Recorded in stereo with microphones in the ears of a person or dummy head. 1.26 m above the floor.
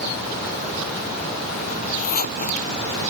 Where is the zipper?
50° left (ahead or behind).